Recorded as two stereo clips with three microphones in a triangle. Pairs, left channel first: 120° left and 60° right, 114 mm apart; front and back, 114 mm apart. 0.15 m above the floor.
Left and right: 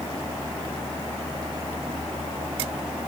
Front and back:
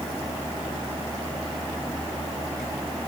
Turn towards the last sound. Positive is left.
No sound to turn to.